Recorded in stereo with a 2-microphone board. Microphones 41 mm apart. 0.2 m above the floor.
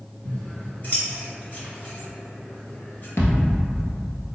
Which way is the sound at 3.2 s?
60° left (ahead or behind).